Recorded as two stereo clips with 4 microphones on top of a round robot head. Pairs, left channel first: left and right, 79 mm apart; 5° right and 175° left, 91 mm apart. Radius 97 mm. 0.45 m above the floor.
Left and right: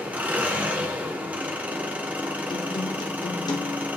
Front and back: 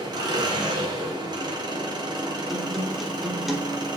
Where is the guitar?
85° left, 1.4 m.